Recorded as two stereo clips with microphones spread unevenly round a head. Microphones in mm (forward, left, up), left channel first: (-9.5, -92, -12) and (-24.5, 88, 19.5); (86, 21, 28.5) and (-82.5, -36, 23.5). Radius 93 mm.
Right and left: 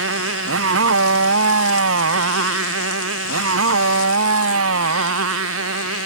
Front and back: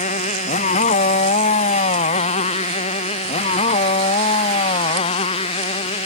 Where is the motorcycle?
75° left; by 6.1 s 80° left.